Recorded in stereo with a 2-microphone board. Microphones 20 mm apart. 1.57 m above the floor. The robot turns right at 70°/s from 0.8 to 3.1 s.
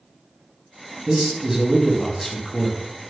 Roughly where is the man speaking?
Ahead right.